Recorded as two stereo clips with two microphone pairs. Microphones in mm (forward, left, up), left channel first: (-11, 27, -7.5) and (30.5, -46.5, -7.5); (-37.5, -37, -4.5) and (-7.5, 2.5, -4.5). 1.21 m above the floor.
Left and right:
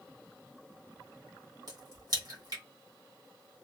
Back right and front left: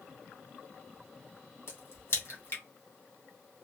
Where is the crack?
95° right, 1.2 m.